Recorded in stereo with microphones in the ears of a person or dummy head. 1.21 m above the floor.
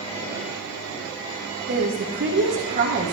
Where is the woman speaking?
40° right (ahead or behind), 1.3 m.